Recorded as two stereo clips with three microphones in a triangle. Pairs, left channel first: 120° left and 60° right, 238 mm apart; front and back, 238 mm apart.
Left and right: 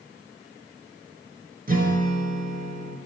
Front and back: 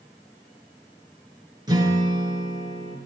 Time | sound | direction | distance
1.7 | a guitar | 110° right | 3 m